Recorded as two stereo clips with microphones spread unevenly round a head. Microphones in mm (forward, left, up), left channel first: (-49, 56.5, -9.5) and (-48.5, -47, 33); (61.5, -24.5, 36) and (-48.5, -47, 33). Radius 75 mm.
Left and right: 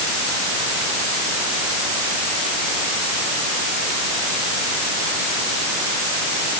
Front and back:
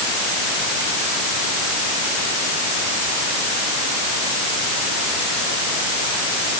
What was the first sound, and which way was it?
Only background noise.